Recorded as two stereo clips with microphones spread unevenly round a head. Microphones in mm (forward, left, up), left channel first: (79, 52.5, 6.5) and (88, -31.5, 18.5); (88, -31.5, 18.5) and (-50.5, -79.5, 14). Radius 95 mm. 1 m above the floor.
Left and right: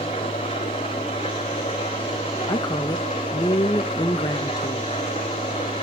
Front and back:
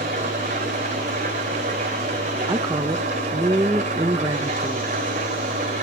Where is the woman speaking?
130° left, 0.5 m.